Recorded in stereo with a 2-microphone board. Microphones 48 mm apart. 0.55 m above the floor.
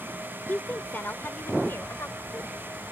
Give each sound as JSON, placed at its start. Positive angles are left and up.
{"t": 0.5, "sound": "a woman speaking", "side_deg": 40}